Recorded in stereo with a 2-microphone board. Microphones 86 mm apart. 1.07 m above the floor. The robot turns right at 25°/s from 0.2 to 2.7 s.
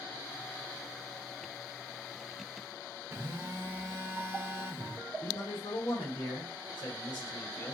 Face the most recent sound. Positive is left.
turn(degrees=65)  # may be behind; listen again after turning